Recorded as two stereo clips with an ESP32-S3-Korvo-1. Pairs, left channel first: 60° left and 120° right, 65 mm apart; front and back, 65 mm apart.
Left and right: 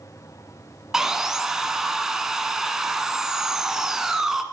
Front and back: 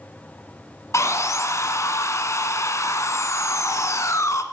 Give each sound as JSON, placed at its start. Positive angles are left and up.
{"t": 0.9, "sound": "sawing", "azimuth_deg": -40, "distance_m": 1.2}